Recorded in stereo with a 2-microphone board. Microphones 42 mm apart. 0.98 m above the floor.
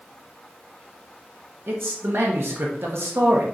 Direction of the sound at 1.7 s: 65° right (ahead or behind).